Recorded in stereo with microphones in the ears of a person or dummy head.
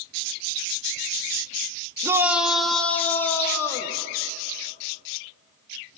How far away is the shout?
About 0.9 m.